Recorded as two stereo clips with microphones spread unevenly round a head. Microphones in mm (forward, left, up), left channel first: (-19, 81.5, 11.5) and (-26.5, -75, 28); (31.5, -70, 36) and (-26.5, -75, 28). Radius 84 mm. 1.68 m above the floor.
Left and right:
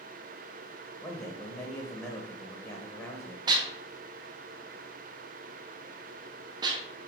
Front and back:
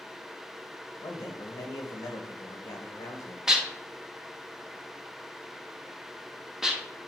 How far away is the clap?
I don't hear a clap.